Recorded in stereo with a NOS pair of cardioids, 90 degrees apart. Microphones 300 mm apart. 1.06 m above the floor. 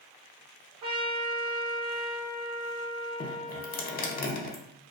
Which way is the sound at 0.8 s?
55° right.